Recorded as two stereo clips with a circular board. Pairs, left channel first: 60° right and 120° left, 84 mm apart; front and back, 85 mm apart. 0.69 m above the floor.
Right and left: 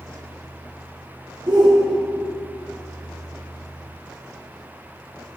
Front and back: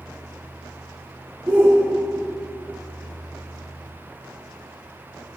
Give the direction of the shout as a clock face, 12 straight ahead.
8 o'clock.